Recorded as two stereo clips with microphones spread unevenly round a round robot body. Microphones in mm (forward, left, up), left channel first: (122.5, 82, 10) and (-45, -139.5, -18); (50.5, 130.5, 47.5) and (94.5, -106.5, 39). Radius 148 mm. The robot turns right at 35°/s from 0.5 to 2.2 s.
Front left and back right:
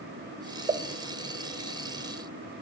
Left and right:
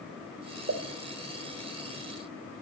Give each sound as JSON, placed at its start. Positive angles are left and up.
{"t": 0.7, "sound": "a pop", "azimuth_deg": -55, "distance_m": 1.6}